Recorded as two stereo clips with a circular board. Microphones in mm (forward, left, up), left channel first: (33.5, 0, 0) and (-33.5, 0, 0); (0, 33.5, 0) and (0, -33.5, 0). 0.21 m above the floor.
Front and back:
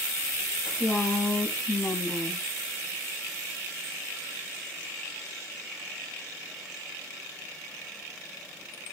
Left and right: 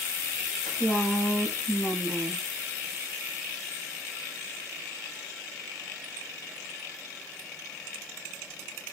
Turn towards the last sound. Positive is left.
turn(degrees=30)